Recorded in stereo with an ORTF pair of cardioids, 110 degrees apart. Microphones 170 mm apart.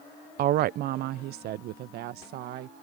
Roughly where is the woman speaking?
Ahead right.